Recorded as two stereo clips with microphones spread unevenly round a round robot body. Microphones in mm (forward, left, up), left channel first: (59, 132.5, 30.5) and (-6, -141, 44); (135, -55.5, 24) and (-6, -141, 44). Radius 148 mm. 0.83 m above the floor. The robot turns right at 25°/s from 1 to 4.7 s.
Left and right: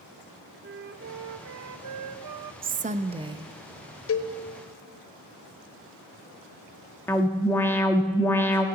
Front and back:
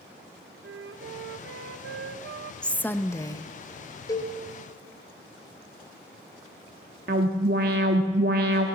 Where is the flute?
160° right, 0.6 m; by 2.5 s 120° right, 0.6 m.